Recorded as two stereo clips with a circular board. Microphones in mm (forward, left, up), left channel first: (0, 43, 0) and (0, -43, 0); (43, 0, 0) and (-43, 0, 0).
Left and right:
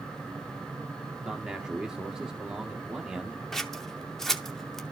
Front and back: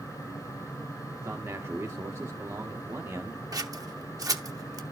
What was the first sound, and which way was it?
A man speaking, 165° right.